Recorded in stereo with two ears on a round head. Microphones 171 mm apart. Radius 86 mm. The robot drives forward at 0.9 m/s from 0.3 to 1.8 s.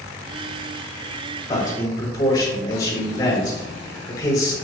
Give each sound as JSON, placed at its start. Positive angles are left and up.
{"t": 1.5, "sound": "a man speaking", "side_deg": 20, "distance_m": 3.5}